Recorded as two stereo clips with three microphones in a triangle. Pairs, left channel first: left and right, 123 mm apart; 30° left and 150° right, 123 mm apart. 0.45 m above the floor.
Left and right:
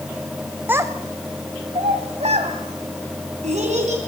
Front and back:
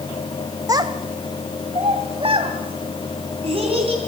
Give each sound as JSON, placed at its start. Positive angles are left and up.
{"t": 0.7, "sound": "a child speaking", "azimuth_deg": -150, "distance_m": 1.0}